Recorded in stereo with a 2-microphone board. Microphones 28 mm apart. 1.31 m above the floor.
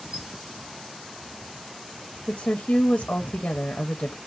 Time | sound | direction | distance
0.1 | a squeak | 35° right (ahead or behind) | 1.1 m
2.3 | a woman speaking | 75° left (ahead or behind) | 0.5 m